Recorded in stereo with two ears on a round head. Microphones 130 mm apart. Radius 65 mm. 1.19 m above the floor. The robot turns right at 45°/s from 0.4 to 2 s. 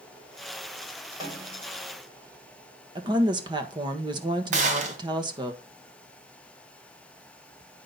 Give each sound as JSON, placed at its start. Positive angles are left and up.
{"t": 1.2, "sound": "a snare drum", "side_deg": -25, "distance_m": 3.5}
{"t": 3.0, "sound": "a woman speaking", "side_deg": -30, "distance_m": 1.4}
{"t": 4.5, "sound": "a gunshot", "side_deg": -55, "distance_m": 1.9}